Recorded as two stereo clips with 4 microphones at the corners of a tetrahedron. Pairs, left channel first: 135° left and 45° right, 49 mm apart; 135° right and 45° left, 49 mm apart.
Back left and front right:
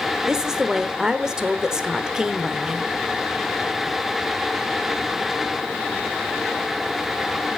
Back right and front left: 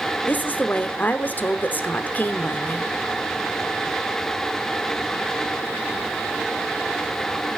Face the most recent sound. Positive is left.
turn(degrees=-115)